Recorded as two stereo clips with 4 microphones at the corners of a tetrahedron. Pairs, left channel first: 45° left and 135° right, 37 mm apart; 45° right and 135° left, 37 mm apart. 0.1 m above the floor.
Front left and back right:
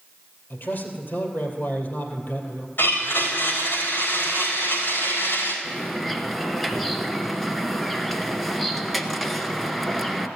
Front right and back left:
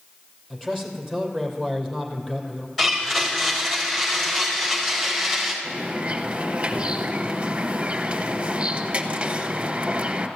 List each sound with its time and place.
0.5 s a man speaking: 40° left, 2.5 m
2.8 s a blender: 40° left, 4 m
5.6 s a bird: 130° left, 1.1 m